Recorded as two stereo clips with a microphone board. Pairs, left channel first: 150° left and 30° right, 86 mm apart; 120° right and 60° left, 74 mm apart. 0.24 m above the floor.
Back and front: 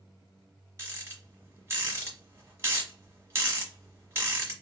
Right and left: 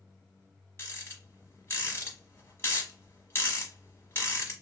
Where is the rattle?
75° right, 1.2 m.